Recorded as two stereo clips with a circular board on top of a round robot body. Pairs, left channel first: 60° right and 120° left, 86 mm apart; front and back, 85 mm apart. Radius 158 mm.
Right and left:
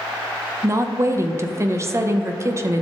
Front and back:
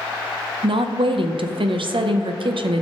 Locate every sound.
0.6 s a woman speaking: 175° left, 0.9 m